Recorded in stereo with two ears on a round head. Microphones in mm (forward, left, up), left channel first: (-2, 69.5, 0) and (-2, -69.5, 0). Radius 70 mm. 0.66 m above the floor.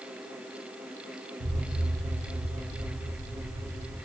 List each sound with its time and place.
1.4 s an explosion: 70° right (ahead or behind), 1.7 m